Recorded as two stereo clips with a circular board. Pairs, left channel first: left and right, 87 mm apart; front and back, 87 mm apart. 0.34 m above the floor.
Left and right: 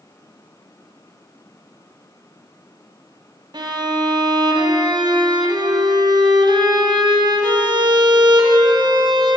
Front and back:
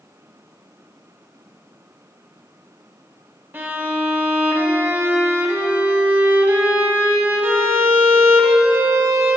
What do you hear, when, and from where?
3.5 s a violin: 115° right, 2 m